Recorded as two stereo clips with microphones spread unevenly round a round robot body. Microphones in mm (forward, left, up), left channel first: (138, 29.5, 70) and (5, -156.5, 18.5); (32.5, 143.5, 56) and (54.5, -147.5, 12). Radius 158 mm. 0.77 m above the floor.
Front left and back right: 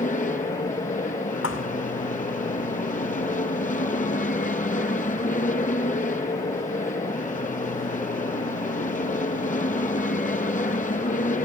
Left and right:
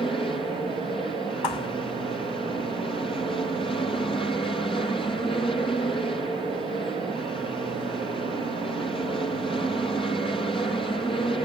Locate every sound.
0.0 s an aircraft: 25° left
1.4 s a thud: 105° left